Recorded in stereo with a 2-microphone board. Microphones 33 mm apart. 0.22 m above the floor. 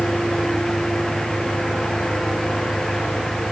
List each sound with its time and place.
0.0 s an engine running: 30° right (ahead or behind)